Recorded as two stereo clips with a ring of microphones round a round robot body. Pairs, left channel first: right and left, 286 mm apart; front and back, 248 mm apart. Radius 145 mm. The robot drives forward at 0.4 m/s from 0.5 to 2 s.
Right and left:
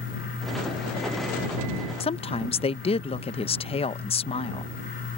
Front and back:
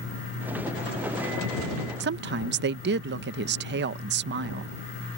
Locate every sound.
2.0 s a woman speaking: 155° right